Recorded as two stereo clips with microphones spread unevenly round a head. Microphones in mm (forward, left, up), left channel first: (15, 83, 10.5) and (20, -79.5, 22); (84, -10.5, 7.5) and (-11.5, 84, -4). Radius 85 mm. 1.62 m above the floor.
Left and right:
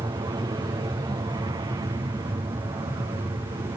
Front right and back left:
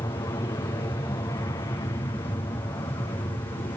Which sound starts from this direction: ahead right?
An aircraft, at 0.0 s.